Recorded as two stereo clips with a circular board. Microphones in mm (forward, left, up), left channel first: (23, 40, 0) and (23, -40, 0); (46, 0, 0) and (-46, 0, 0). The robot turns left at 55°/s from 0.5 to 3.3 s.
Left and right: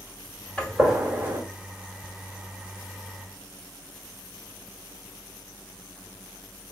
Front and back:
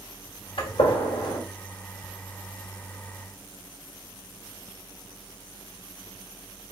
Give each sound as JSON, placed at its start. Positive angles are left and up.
{"t": 0.6, "sound": "a gunshot", "azimuth_deg": 15, "distance_m": 1.5}